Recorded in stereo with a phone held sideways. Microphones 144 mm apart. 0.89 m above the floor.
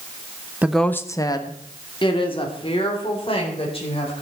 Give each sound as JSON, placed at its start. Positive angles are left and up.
{"t": 0.6, "sound": "a woman speaking", "side_deg": -10, "distance_m": 0.6}